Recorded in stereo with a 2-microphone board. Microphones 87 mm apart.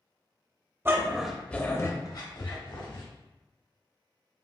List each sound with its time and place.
0.8 s a dog barking: 30° right (ahead or behind), 0.6 m; by 3.0 s 65° left (ahead or behind), 1.2 m